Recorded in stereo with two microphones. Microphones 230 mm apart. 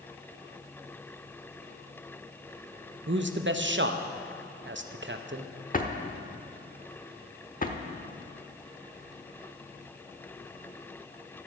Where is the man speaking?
55° right (ahead or behind), 0.7 m.